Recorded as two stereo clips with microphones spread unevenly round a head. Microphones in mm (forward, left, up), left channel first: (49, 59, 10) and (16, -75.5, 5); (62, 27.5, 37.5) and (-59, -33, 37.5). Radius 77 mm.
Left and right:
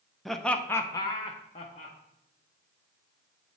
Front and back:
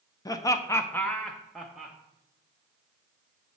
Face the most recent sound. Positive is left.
turn(degrees=125)